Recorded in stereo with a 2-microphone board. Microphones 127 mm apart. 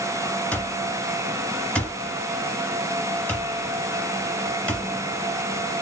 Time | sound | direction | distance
0.5 | an alarm clock | 10° left (ahead or behind) | 1.7 m